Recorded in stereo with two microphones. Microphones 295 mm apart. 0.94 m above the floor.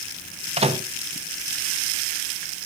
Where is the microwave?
20° right (ahead or behind), 1.1 m.